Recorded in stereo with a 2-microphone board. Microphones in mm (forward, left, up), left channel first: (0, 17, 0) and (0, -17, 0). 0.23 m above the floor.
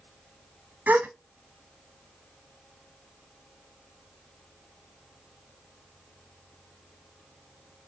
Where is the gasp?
55° right (ahead or behind), 0.8 m.